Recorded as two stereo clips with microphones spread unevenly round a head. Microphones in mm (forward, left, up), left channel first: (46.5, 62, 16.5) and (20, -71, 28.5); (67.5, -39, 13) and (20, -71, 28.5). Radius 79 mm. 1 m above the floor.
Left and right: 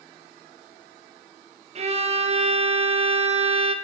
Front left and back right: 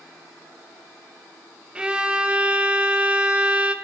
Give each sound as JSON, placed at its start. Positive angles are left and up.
{"t": 1.8, "sound": "a violin", "azimuth_deg": -65, "distance_m": 1.0}